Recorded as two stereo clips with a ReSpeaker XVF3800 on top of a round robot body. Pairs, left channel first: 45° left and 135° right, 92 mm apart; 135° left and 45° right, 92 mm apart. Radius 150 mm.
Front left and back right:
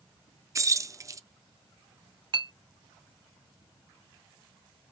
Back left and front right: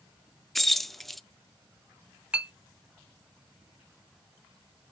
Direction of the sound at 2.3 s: 120° right.